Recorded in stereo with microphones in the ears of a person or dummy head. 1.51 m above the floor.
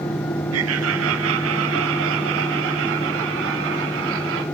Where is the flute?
No flute in this recording.